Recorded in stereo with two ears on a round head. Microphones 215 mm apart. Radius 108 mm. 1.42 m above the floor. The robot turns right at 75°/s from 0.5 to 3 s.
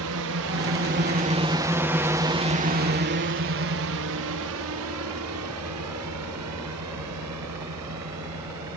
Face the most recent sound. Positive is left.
turn(degrees=-80)